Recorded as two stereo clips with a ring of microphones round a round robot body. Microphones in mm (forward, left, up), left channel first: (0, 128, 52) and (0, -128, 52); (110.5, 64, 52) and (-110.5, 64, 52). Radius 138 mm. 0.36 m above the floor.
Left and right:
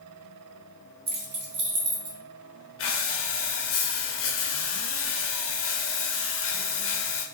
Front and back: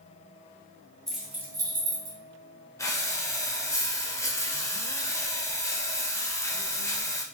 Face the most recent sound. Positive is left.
turn(degrees=75)